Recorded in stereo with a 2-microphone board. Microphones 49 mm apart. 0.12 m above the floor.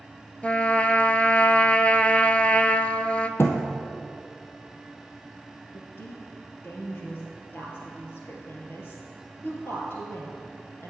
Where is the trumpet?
25° left (ahead or behind), 0.5 m.